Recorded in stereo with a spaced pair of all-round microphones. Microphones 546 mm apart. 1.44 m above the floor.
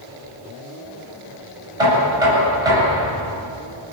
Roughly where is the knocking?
Right.